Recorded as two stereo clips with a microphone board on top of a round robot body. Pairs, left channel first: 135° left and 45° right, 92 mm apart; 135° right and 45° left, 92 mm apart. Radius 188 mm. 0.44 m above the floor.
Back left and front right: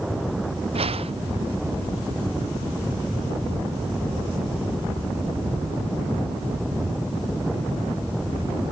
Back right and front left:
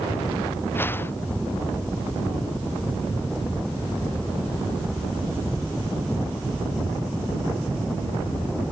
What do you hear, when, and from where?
0.8 s a whoosh: 65° right